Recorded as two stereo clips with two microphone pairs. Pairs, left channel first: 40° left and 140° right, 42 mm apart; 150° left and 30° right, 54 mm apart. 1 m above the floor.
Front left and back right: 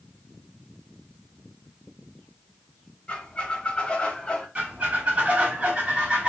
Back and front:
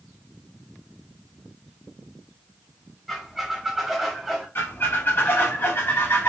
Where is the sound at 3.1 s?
55° left, 0.8 m.